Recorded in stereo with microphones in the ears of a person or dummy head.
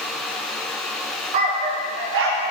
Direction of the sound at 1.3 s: 20° right (ahead or behind).